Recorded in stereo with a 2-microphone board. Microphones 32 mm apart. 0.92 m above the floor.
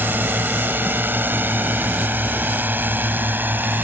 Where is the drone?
75° right (ahead or behind); by 3.8 s 70° right (ahead or behind).